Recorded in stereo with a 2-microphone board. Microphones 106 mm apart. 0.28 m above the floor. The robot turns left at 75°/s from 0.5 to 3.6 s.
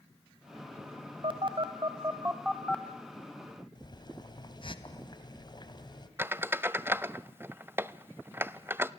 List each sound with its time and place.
1.2 s a phone buzzing: 50° right (ahead or behind), 1.4 m; by 4.8 s 50° left (ahead or behind), 1.4 m
3.8 s boiling: 40° left (ahead or behind), 2 m
6.2 s a squeak: 20° right (ahead or behind), 0.5 m